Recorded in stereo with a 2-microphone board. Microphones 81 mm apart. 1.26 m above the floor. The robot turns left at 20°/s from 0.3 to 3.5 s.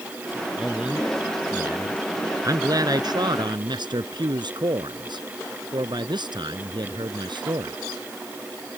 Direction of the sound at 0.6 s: 10° right.